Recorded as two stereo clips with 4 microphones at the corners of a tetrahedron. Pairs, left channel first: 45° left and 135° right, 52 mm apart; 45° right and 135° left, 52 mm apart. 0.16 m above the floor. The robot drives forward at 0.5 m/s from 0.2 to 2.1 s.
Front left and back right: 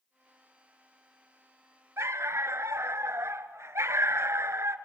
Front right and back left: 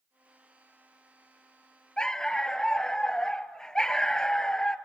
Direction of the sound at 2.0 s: 115° right.